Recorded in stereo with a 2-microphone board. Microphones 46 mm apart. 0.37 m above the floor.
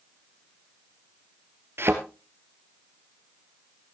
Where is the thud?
60° right (ahead or behind), 1.7 m.